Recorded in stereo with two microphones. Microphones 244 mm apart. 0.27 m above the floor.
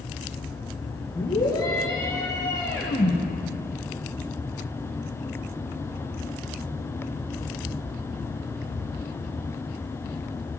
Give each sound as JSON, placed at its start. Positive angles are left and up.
{"t": 1.1, "sound": "a scream", "side_deg": 15, "distance_m": 10.0}